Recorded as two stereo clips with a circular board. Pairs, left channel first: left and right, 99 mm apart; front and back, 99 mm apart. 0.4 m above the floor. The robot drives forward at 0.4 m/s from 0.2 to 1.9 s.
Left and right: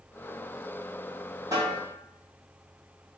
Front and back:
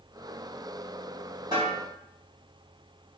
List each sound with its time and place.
1.5 s a snare drum: 140° right, 1.5 m; by 1.8 s 145° right, 1.6 m